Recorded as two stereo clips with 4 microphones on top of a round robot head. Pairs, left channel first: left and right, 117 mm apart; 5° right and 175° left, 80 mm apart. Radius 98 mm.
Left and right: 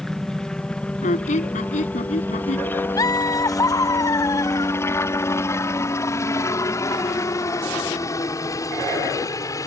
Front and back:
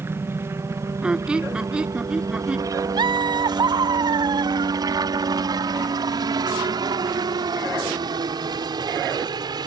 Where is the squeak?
100° left.